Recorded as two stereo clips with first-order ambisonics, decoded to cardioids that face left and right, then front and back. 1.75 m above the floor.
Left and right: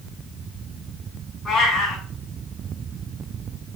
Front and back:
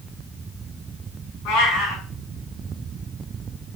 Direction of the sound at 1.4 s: 15° left.